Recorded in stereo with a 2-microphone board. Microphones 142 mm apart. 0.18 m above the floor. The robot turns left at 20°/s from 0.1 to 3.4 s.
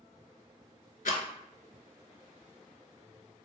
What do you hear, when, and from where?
1.1 s a rattle: 75° left (ahead or behind), 0.5 m